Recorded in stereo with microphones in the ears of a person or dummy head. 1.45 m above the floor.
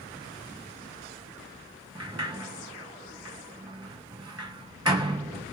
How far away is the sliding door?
About 0.5 m.